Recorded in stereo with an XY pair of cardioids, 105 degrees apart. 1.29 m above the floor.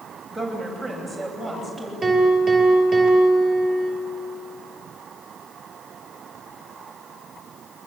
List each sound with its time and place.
0.3 s a woman speaking: 5° left, 8 m; by 1.9 s straight ahead, 9 m
2.0 s a piano: 20° right, 5.5 m